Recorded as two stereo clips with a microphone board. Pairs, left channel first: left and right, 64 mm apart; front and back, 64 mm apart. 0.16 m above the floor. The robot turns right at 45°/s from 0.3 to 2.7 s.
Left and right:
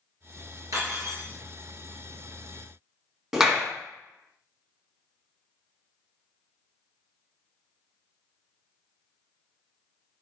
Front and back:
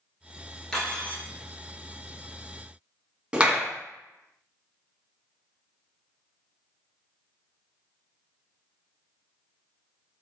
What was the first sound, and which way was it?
Cutlery clinking, 80° right.